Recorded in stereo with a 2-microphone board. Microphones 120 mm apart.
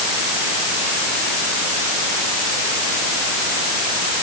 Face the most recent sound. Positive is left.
No sound to turn to.